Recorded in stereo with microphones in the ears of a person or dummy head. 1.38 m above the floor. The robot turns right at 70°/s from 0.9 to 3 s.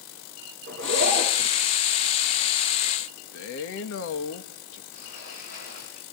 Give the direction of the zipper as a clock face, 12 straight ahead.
2 o'clock.